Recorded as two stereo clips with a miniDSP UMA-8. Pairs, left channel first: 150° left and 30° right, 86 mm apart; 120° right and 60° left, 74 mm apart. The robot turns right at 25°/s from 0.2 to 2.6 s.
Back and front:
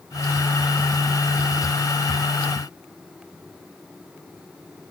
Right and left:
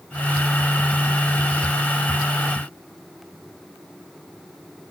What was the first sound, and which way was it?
Only background noise.